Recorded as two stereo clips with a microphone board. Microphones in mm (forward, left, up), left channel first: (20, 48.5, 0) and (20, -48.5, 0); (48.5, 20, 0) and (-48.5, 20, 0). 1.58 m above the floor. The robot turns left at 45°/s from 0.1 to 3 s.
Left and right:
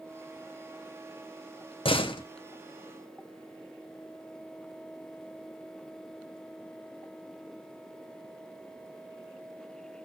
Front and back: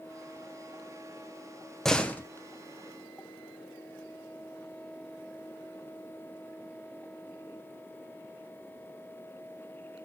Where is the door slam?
85° left, 0.8 m; by 2.2 s 70° left, 0.8 m.